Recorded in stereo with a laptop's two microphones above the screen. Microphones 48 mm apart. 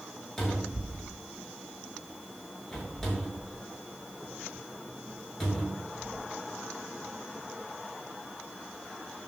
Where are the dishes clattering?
No dishes clattering in this recording.